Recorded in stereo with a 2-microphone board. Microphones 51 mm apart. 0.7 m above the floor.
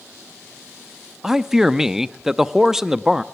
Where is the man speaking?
10° right (ahead or behind), 0.6 m.